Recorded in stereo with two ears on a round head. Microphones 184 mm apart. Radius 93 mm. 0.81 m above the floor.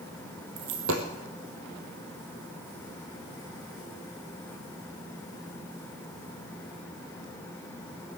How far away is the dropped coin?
About 2.5 m.